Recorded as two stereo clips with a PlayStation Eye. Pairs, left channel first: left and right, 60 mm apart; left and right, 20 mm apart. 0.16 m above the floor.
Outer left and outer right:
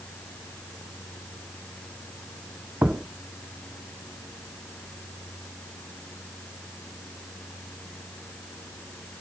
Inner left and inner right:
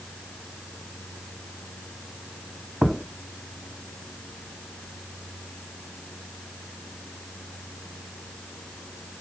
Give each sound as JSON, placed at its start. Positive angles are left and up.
{"t": 2.8, "sound": "a thud", "side_deg": -20, "distance_m": 0.7}